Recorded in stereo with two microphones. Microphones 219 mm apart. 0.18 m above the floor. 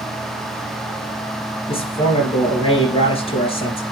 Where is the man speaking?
25° left (ahead or behind), 3 m.